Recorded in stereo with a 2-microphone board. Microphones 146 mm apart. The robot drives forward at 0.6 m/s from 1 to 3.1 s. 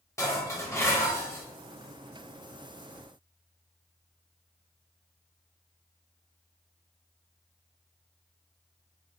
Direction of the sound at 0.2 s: 20° left (ahead or behind).